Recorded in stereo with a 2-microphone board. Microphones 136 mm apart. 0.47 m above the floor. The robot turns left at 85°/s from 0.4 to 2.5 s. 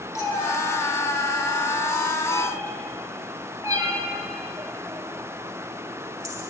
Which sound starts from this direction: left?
A cat meowing, at 0.1 s.